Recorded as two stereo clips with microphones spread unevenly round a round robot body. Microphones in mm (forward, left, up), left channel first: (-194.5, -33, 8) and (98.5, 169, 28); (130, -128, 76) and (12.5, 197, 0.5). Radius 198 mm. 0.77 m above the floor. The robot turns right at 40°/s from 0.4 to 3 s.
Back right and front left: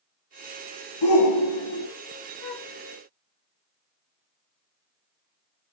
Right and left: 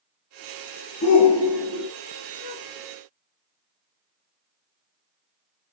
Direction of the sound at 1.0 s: 130° right.